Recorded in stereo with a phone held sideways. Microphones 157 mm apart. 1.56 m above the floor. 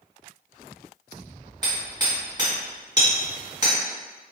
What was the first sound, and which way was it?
Hammering, 25° right (ahead or behind).